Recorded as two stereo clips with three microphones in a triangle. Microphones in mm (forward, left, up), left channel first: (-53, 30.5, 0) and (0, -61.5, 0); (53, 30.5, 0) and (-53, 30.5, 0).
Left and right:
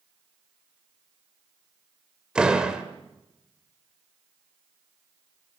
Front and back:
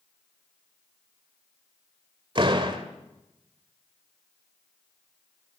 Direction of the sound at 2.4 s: 145° right.